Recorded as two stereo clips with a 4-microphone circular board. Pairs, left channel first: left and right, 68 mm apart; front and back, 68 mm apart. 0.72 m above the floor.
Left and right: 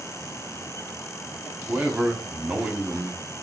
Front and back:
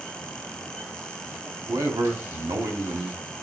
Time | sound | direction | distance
1.7 | a man speaking | 160° right | 1.3 m